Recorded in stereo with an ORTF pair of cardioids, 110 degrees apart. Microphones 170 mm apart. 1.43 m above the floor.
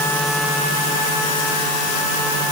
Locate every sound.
Only background noise.